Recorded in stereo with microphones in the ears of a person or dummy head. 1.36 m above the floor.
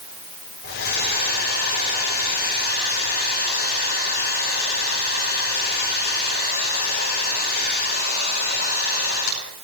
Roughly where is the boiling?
I don't hear boiling.